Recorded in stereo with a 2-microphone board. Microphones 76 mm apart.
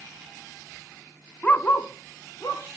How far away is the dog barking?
About 0.8 m.